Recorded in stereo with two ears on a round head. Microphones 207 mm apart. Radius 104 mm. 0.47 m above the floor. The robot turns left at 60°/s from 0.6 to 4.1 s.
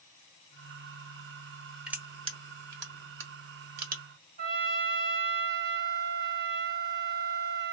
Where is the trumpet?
45° right (ahead or behind), 1.4 m.